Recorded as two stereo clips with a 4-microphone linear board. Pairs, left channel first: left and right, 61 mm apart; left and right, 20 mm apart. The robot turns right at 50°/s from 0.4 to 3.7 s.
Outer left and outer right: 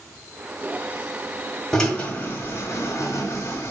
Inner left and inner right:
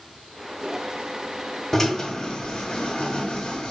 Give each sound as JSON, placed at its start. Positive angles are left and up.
{"t": 1.7, "sound": "a drill", "side_deg": 10, "distance_m": 2.0}